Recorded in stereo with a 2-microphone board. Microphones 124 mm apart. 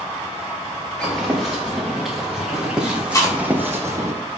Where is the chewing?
25° left (ahead or behind), 1.4 m.